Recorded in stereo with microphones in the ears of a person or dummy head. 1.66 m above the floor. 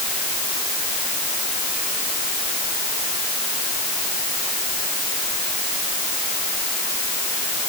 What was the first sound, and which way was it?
Only background noise.